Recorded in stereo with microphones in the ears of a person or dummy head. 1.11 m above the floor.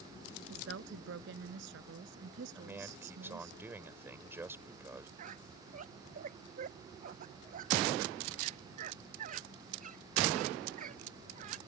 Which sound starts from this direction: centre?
A man speaking, at 2.5 s.